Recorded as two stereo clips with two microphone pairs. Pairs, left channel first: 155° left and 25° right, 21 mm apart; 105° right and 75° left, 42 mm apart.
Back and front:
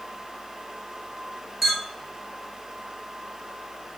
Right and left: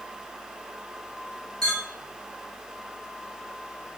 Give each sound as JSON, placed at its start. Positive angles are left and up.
{"t": 1.6, "sound": "a clink", "azimuth_deg": -70, "distance_m": 1.1}